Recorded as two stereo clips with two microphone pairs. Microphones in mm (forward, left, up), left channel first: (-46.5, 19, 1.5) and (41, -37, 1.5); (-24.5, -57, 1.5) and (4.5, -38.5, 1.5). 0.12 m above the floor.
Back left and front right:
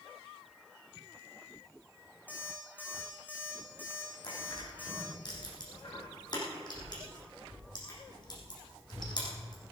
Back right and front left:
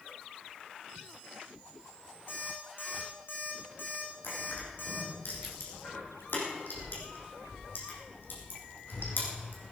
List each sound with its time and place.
2.3 s an alarm clock: 140° right, 4 m
4.2 s crushing: 170° right, 5.5 m